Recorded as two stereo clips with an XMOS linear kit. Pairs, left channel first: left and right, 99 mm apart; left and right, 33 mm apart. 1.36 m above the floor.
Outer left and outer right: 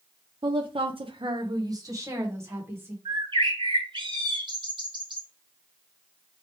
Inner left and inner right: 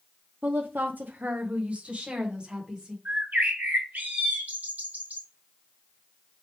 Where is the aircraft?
No aircraft in this recording.